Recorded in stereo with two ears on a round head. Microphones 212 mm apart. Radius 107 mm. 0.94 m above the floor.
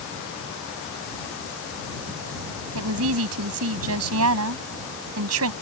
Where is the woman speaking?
65° right (ahead or behind).